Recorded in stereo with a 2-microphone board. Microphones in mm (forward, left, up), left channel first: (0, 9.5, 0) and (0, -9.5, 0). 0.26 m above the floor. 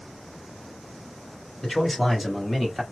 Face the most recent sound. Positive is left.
turn(degrees=0)  # may be behind; listen again after turning